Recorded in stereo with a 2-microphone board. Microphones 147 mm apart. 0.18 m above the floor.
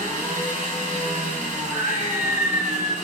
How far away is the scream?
About 1.0 m.